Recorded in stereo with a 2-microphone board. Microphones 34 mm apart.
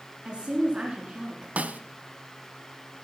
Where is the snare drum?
55° right (ahead or behind), 0.5 m.